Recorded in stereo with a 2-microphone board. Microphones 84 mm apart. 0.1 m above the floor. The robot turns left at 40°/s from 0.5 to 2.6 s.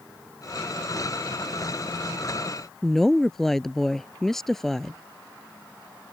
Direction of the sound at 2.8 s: 5° left (ahead or behind).